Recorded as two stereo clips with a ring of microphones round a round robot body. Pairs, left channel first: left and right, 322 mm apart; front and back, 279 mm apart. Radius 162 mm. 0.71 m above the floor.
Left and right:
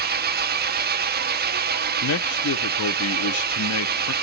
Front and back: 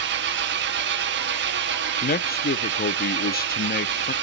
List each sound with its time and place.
0.0 s an engine running: 140° right, 1.0 m
2.0 s a man speaking: 50° left, 0.9 m